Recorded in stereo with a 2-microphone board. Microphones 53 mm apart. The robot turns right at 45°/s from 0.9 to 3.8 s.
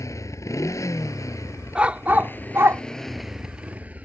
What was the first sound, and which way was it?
A motorcycle, 80° left.